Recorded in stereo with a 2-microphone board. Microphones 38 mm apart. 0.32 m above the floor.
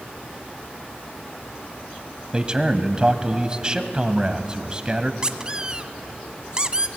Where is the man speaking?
20° right (ahead or behind), 1.7 m.